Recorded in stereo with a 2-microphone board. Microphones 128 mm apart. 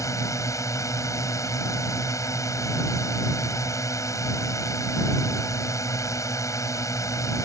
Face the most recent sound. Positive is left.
turn(degrees=25)  # may be behind; listen again after turning